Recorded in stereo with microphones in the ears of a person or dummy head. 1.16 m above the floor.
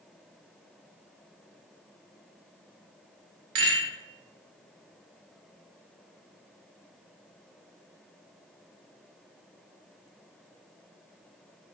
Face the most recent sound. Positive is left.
turn(degrees=-65)  # may be behind; listen again after turning